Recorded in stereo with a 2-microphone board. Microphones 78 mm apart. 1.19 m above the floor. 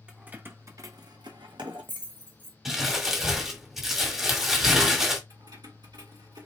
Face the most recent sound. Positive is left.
turn(degrees=-65)  # may be behind; listen again after turning